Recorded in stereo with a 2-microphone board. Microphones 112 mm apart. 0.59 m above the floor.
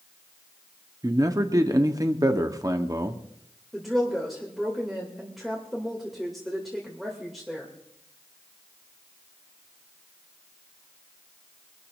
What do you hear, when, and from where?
1.0 s a man speaking: 30° right (ahead or behind), 1.1 m
3.7 s a woman speaking: centre (ahead or behind), 2.5 m